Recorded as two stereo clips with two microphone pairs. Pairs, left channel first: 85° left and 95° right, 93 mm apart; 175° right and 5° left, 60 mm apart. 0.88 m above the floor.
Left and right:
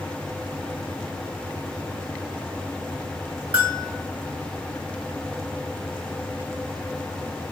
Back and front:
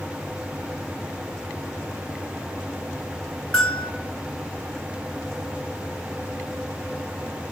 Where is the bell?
95° right, 1.1 m.